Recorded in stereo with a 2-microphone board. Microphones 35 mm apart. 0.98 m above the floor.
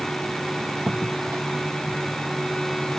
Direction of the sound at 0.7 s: 85° right.